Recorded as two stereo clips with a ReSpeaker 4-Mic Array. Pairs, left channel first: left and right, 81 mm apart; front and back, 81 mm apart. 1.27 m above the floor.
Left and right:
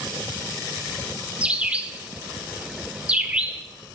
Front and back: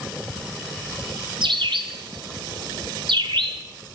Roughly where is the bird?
Behind.